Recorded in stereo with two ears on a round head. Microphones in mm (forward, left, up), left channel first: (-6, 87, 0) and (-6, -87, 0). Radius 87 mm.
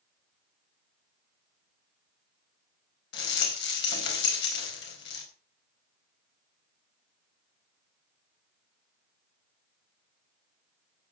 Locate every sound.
3.1 s a rattle: 60° left (ahead or behind), 4.5 m